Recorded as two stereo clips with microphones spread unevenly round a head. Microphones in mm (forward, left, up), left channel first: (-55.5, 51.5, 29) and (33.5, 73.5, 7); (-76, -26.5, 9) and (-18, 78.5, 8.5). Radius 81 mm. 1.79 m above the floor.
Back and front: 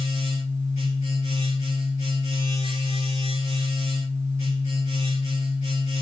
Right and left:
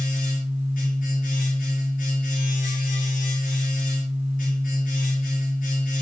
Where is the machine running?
120° right, 6 m.